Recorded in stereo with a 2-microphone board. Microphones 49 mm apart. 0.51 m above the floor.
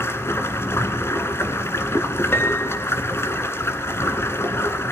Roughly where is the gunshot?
No gunshot in this recording.